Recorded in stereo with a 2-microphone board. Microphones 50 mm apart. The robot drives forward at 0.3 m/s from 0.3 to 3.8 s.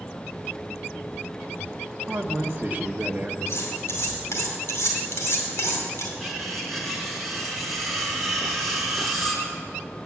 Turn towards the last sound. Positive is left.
turn(degrees=5)  # may be behind; listen again after turning